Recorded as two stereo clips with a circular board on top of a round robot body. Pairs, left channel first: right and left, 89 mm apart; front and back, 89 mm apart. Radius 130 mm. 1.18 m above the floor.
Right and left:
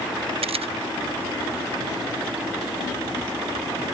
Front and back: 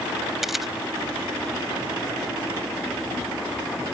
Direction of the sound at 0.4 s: 95° left.